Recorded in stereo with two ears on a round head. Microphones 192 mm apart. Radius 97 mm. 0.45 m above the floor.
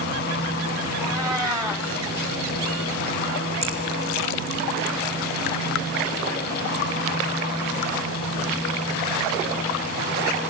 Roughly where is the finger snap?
Right.